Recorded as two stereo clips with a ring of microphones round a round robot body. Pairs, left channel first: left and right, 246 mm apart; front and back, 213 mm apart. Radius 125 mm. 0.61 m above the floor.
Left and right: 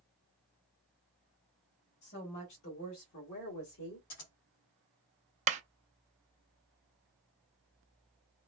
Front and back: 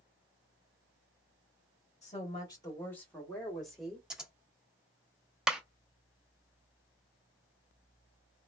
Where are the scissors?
95° left, 1.6 m.